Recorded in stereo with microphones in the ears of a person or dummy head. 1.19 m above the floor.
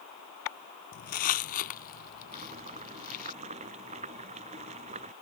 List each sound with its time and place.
0.9 s footsteps: 50° left (ahead or behind); by 3.3 s 55° left (ahead or behind)
2.3 s boiling: 35° right (ahead or behind)